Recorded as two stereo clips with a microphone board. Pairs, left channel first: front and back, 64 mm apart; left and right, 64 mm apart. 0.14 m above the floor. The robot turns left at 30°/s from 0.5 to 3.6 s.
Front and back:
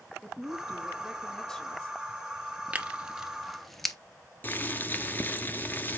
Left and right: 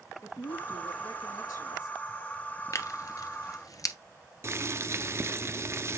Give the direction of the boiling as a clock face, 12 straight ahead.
2 o'clock.